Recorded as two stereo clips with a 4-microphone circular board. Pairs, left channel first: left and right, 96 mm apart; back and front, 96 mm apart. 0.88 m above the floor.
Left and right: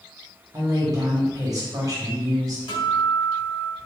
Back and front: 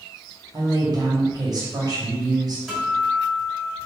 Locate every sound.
0.5 s a woman speaking: 40° right, 1.2 m
2.7 s a guitar: 75° left, 2.0 m